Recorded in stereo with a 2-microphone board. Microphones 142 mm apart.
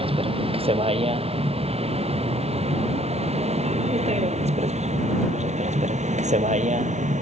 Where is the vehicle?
40° right (ahead or behind); by 7.2 s 60° right (ahead or behind).